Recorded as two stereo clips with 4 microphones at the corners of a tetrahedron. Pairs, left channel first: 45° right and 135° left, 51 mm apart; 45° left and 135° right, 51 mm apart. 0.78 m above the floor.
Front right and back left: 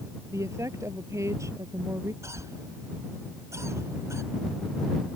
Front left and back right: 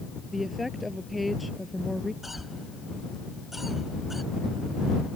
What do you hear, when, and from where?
0.3 s a woman speaking: 140° left; by 2.1 s 135° left
2.2 s a cough: 140° left